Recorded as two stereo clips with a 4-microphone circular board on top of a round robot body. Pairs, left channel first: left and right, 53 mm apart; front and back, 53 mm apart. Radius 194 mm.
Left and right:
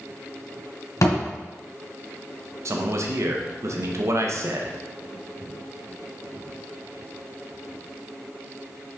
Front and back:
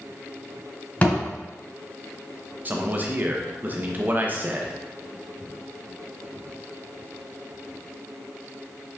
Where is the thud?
65° left, 2 m.